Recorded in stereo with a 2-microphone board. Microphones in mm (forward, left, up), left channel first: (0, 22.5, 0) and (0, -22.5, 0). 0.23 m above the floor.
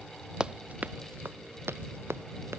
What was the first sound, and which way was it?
Running footsteps, 20° right (ahead or behind).